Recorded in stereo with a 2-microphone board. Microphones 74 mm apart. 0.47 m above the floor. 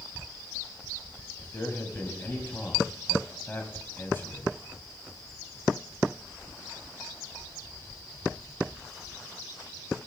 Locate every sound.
1.4 s a man speaking: 30° left (ahead or behind), 2.5 m